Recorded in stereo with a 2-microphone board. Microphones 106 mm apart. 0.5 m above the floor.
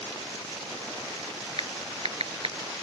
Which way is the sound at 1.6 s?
65° right (ahead or behind).